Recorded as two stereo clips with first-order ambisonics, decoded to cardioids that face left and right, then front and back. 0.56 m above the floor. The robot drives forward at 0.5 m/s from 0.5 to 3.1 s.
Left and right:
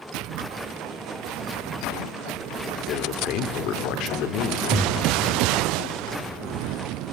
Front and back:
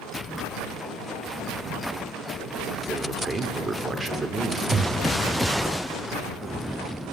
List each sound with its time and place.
2.9 s a man speaking: 105° left, 1.8 m
4.7 s breathing: 165° left, 0.8 m